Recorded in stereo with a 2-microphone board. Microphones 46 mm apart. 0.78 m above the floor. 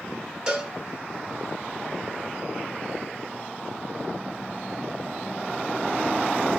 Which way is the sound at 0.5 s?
25° right (ahead or behind).